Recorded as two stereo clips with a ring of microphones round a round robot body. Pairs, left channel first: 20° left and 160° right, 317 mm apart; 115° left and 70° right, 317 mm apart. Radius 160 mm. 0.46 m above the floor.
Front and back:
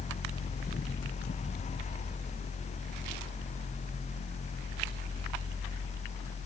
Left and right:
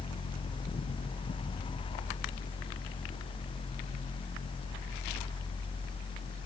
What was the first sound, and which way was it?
Only background noise.